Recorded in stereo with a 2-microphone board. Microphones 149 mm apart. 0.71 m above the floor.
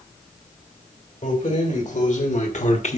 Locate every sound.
1.2 s keys jangling: 60° left (ahead or behind), 2.5 m; by 3.0 s 50° left (ahead or behind), 1.0 m